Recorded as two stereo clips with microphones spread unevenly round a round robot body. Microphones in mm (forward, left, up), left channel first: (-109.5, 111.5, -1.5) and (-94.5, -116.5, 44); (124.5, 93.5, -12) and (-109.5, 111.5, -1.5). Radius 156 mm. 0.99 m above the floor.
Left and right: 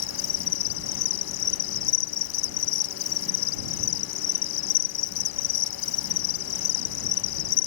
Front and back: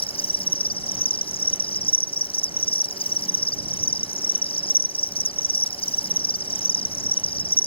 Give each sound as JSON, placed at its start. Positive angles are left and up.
{"t": 0.0, "sound": "an insect", "azimuth_deg": 65}